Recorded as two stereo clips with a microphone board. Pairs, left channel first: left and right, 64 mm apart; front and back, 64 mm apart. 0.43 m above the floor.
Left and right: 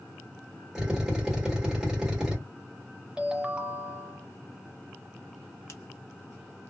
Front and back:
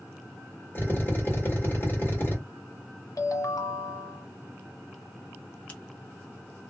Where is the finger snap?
60° left, 0.8 m.